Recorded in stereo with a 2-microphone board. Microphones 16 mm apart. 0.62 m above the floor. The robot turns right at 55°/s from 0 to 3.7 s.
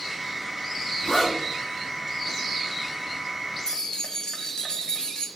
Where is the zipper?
60° left (ahead or behind), 2 m; by 1.4 s 45° left (ahead or behind), 2 m.